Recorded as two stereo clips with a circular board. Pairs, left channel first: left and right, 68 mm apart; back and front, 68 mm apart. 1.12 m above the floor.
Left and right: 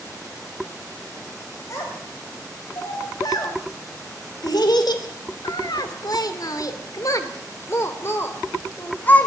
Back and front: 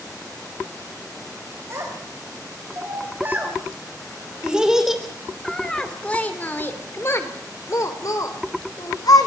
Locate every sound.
1.7 s a child speaking: 50° left, 4.5 m; by 9.3 s 155° left, 4 m